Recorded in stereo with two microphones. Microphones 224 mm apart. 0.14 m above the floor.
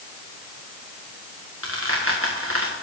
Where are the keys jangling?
No keys jangling in this recording.